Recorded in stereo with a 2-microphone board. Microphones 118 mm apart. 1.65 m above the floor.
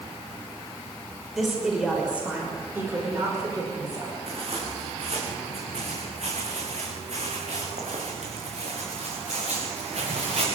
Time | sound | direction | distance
1.3 | a woman speaking | centre (ahead or behind) | 6 m
4.3 | footsteps | 55° right (ahead or behind) | 5.5 m